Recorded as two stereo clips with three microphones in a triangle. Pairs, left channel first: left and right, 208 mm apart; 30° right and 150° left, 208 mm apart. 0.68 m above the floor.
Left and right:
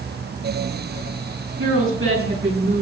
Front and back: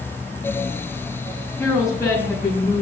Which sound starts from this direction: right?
A woman speaking, at 1.6 s.